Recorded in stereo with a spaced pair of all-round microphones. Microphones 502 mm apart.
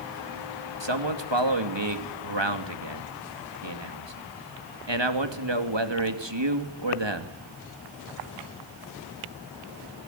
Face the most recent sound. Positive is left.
turn(degrees=-65)  # may be behind; listen again after turning